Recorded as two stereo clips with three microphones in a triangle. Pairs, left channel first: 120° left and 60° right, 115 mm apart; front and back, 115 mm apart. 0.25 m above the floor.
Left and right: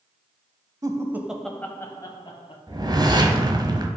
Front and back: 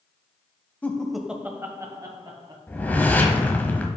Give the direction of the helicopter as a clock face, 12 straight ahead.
I don't hear a helicopter.